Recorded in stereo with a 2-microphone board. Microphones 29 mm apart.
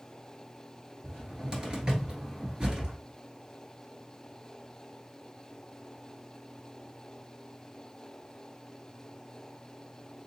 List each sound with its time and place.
1.0 s a cupboard door: 30° right (ahead or behind), 1.3 m